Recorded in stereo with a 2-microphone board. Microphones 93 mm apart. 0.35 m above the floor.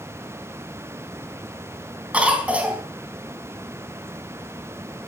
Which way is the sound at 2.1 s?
15° right (ahead or behind).